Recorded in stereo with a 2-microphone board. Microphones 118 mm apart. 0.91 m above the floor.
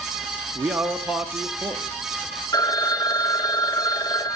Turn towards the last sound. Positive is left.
turn(degrees=35)  # may be behind; listen again after turning